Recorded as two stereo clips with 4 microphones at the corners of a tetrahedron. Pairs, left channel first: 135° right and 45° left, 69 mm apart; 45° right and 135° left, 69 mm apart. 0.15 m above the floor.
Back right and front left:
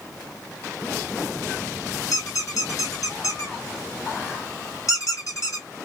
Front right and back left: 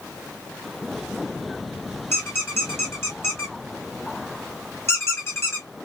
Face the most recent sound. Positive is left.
turn(degrees=-95)